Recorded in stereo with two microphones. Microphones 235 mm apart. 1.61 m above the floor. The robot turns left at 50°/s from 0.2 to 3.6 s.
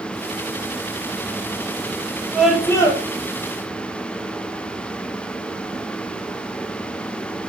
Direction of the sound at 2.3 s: 175° right.